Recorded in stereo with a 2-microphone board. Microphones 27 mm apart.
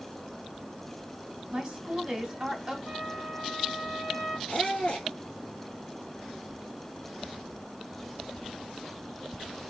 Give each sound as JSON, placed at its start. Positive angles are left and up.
{"t": 1.5, "sound": "a woman speaking", "side_deg": -25, "distance_m": 1.7}
{"t": 2.9, "sound": "a trumpet", "side_deg": 30, "distance_m": 2.5}
{"t": 4.5, "sound": "a squeak", "side_deg": 35, "distance_m": 2.0}